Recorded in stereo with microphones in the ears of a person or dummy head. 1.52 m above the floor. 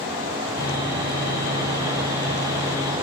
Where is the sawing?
20° left (ahead or behind), 6.5 m.